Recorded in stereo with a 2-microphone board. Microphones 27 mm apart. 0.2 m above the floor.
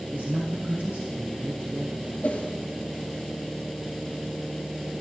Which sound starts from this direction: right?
A man speaking, at 0.1 s.